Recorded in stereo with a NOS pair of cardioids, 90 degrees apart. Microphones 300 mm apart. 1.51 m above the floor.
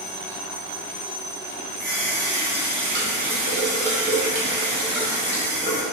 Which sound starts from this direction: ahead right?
A running tap, at 1.8 s.